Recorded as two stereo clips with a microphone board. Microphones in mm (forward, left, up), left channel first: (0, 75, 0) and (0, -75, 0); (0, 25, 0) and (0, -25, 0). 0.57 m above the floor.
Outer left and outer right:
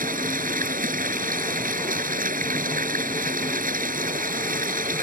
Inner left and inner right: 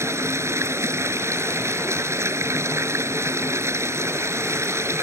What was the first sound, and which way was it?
Running water, 70° right (ahead or behind).